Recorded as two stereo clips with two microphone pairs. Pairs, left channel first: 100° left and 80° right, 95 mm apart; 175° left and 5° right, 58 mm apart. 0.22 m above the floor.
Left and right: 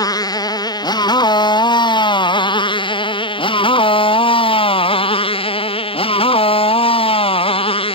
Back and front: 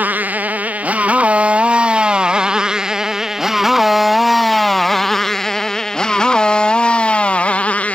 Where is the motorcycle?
55° left; by 8.0 s 110° left.